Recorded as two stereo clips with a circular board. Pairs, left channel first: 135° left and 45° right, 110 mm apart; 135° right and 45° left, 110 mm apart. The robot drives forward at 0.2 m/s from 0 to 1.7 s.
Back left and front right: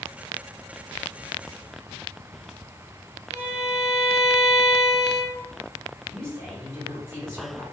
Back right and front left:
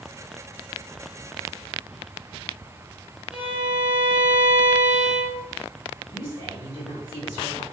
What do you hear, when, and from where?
3.3 s a violin: 40° right, 0.9 m
6.1 s a woman speaking: 100° right, 1.6 m